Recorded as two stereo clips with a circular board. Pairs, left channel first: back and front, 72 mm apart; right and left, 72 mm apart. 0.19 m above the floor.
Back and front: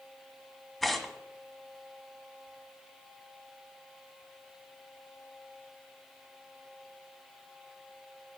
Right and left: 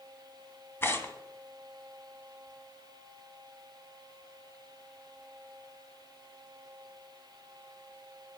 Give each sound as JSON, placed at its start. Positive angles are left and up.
{"t": 0.8, "sound": "tearing paper", "azimuth_deg": -90, "distance_m": 1.2}